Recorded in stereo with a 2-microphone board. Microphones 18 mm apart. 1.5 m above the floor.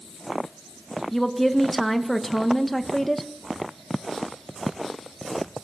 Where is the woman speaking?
5° left (ahead or behind), 1.7 m.